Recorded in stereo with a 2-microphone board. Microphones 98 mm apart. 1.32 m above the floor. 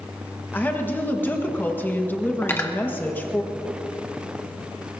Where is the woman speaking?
20° left (ahead or behind), 1.5 m.